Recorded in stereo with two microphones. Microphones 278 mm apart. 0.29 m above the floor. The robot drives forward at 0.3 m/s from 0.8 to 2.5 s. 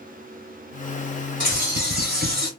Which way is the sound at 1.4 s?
30° right (ahead or behind).